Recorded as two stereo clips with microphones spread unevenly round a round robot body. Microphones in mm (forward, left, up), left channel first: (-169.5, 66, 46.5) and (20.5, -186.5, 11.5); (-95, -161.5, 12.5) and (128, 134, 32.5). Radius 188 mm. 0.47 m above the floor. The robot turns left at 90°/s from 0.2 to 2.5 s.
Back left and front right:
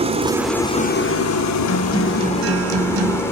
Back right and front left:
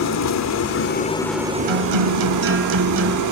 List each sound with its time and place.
0.0 s an engine running: 110° right, 1.5 m; by 3.3 s 40° left, 1.5 m
1.7 s a guitar: 70° left, 1.4 m; by 3.2 s 5° right, 1.4 m